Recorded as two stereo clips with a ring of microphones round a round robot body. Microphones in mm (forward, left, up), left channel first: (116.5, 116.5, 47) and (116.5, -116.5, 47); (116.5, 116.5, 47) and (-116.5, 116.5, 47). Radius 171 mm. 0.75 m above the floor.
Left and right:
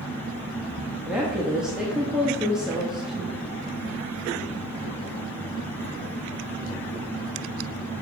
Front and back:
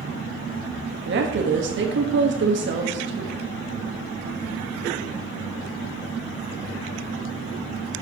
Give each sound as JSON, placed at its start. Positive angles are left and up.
{"t": 1.1, "sound": "a woman speaking", "azimuth_deg": -175, "distance_m": 1.2}